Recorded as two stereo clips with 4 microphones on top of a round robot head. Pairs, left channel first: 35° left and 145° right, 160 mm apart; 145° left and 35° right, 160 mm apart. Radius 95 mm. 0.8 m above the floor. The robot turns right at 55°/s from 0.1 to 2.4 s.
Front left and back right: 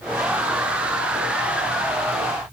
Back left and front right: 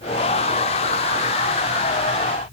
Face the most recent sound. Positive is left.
No sound to turn to.